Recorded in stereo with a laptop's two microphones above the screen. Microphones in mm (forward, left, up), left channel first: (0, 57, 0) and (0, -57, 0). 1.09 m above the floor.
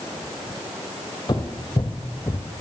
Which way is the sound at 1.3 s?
40° left (ahead or behind).